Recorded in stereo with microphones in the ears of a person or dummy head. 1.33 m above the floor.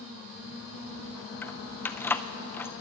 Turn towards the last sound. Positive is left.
turn(degrees=10)  # may be behind; listen again after turning